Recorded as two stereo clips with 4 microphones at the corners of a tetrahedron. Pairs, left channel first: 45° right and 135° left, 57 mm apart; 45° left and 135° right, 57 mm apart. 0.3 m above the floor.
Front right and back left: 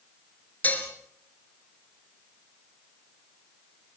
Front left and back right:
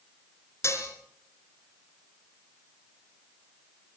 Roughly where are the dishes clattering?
Ahead.